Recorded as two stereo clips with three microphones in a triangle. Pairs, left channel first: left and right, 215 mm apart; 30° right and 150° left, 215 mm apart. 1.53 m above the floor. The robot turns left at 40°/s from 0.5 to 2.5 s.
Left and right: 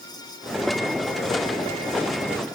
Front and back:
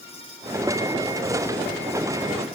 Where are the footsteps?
I don't hear footsteps.